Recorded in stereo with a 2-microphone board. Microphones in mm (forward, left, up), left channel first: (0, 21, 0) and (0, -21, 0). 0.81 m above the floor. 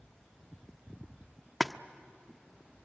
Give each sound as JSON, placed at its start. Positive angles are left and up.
{"t": 1.6, "sound": "a splash", "side_deg": 0, "distance_m": 0.5}